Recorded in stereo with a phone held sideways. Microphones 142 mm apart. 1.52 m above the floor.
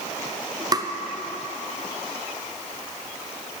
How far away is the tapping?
About 0.6 m.